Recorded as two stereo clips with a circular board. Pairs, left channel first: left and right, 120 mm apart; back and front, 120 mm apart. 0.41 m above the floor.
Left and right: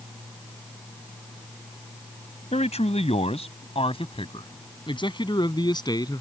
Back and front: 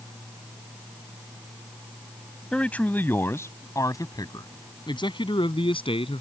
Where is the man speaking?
100° left; by 6.2 s 145° left.